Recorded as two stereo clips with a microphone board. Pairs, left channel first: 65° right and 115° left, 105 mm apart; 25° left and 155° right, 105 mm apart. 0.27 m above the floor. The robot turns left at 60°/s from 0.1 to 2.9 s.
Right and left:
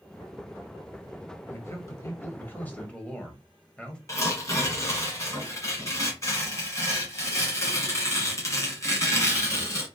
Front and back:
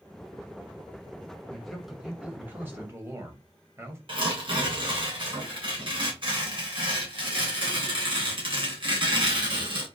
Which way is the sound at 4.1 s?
125° right.